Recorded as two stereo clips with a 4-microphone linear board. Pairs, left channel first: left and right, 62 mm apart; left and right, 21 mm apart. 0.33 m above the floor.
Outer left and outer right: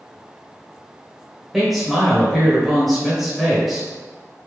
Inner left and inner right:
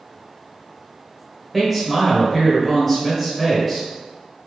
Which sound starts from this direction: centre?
A man speaking, at 1.5 s.